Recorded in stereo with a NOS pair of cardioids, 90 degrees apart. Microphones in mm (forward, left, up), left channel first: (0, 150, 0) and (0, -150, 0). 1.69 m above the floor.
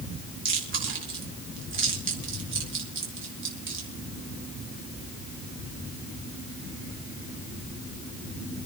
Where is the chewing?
40° right, 5 m.